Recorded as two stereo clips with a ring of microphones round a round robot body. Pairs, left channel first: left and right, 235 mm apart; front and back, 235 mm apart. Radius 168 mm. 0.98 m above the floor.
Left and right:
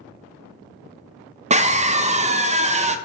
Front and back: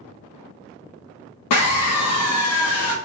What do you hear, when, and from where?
1.5 s a scream: 25° right, 0.6 m